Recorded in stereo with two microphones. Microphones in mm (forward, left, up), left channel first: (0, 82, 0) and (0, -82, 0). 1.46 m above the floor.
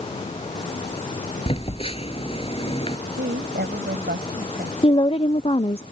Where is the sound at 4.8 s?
35° left (ahead or behind).